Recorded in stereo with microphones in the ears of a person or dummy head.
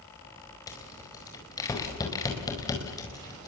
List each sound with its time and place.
0.7 s a rattle: 15° left (ahead or behind), 4.5 m